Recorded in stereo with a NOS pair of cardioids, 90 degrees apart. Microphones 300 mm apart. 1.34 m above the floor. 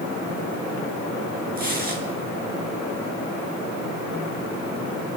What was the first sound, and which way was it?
Tearing paper, 30° right.